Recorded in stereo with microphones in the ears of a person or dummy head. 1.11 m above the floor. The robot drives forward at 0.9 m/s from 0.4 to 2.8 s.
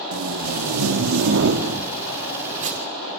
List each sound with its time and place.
0.1 s tape being pulled: 80° right, 1.5 m; by 2.9 s 40° right (ahead or behind), 2.5 m